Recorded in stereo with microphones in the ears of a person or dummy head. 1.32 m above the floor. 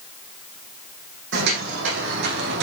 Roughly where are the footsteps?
Right.